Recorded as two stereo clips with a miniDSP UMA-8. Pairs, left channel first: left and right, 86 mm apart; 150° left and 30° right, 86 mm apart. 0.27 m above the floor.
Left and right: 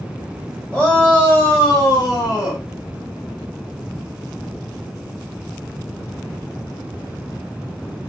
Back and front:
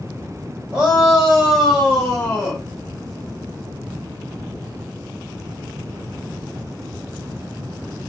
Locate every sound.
0.7 s a shout: 30° left, 1.3 m; by 2.6 s 85° left, 1.7 m